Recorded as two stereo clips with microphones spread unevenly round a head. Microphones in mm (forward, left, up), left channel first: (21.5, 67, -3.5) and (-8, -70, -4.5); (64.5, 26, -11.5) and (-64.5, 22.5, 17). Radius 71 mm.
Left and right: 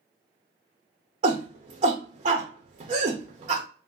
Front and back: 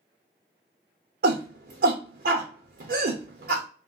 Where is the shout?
155° right, 0.6 m.